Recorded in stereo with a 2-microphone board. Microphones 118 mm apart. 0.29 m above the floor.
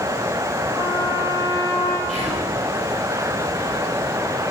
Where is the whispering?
75° left (ahead or behind), 8 m.